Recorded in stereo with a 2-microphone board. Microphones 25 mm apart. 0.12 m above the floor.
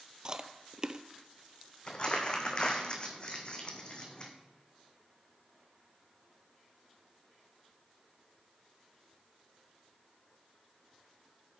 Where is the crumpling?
35° left (ahead or behind), 1.7 m.